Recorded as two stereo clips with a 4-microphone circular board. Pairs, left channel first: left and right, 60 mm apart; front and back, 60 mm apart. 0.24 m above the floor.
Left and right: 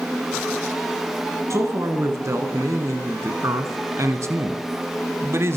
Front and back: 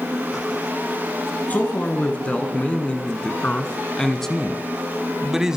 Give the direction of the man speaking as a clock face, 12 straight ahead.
2 o'clock.